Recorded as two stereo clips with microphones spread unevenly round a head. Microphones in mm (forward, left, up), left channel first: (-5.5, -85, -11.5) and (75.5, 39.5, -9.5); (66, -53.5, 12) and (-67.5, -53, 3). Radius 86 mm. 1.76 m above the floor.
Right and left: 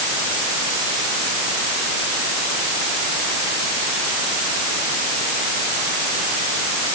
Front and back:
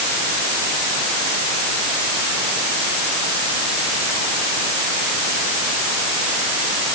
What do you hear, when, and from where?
Only background noise.